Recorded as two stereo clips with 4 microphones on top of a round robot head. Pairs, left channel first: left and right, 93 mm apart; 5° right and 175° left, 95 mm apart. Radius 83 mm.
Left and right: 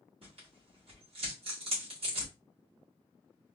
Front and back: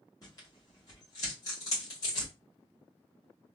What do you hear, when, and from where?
0.2 s tearing paper: 60° right, 1.9 m